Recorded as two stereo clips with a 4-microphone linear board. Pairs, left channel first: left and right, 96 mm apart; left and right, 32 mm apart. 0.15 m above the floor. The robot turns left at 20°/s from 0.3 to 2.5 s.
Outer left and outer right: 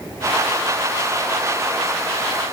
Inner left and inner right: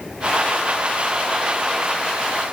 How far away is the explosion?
I don't hear an explosion.